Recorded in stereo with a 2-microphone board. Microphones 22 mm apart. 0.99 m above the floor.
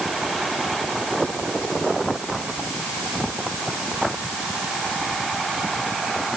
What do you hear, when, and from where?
Only background noise.